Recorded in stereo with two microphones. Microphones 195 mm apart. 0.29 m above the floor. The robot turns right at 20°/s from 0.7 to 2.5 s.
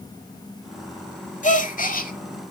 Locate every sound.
1.4 s a gasp: 45° left (ahead or behind), 1.1 m; by 2.1 s 50° left (ahead or behind), 1.1 m